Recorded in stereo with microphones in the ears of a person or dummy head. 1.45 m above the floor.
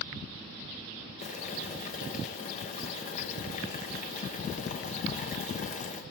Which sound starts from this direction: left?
Boiling, at 1.2 s.